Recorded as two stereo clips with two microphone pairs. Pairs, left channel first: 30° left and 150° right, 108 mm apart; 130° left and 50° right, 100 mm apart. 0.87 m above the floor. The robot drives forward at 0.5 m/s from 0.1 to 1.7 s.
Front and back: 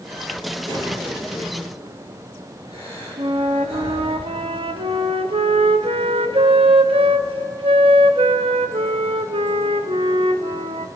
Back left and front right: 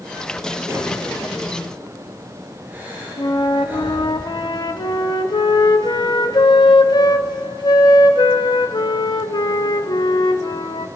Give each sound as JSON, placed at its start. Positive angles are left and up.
{"t": 0.7, "sound": "breathing", "azimuth_deg": -110, "distance_m": 4.5}
{"t": 3.2, "sound": "a flute", "azimuth_deg": 175, "distance_m": 0.6}